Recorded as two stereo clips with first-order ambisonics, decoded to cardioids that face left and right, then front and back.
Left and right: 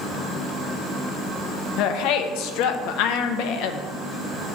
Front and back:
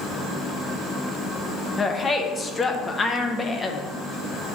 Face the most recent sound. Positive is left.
turn(degrees=75)